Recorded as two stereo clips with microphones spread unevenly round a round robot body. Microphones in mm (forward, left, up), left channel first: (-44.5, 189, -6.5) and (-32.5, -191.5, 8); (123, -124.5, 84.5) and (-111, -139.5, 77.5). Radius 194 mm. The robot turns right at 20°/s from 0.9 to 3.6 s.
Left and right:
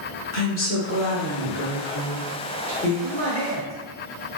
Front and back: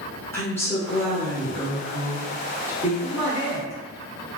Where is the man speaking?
105° left, 1.3 m; by 3.7 s 115° left, 1.3 m.